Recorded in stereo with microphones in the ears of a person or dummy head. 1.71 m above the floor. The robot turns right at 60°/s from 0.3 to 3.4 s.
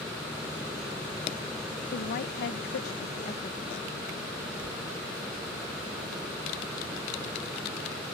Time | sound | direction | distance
1.9 | a woman speaking | 55° left | ?